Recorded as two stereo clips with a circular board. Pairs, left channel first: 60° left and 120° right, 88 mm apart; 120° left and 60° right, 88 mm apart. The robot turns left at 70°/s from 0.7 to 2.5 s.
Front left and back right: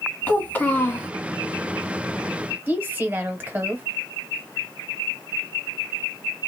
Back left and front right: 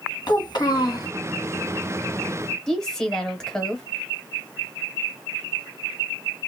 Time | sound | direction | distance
0.3 | a child speaking | 125° left | 1.7 m
2.7 | a woman speaking | 165° right | 1.0 m